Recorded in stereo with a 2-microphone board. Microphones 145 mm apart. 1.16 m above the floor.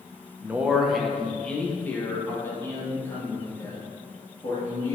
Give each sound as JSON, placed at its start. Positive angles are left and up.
{"t": 0.4, "sound": "a man speaking", "side_deg": -15, "distance_m": 0.7}